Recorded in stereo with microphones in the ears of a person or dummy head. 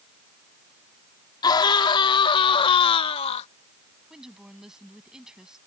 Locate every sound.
1.4 s a scream: 25° left (ahead or behind); by 3.5 s 35° left (ahead or behind)
4.1 s a woman speaking: 5° right (ahead or behind)